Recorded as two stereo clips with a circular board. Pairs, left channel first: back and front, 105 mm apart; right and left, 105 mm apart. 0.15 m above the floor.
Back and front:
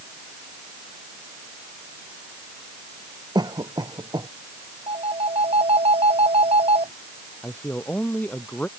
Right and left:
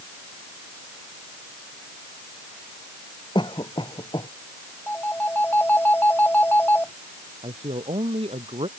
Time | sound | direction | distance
3.4 | a cough | 50° right | ?
4.9 | a phone ringing | 20° right | ?
7.4 | a man speaking | 105° left | ?